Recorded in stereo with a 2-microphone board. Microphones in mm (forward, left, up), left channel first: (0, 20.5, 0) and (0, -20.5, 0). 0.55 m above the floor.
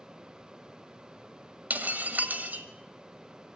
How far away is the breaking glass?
About 1.4 m.